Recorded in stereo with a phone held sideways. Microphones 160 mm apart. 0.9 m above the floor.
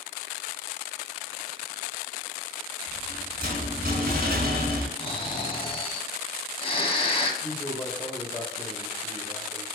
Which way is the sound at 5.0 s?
35° left (ahead or behind).